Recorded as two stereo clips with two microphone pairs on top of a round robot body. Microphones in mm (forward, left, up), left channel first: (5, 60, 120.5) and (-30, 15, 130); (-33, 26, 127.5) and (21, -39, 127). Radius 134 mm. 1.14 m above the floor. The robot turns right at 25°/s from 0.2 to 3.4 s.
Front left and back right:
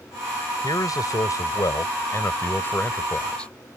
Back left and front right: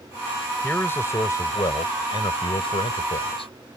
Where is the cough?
No cough in this recording.